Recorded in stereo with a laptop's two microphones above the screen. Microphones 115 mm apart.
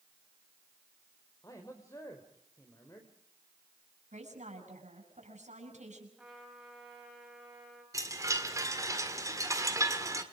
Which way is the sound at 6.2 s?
5° right (ahead or behind).